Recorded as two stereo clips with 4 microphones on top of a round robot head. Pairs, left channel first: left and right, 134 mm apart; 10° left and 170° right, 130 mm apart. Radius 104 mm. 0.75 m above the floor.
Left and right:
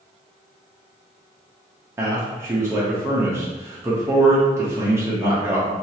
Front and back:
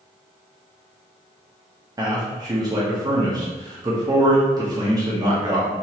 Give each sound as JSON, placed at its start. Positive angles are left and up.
{"t": 2.0, "sound": "a man speaking", "azimuth_deg": -145, "distance_m": 0.7}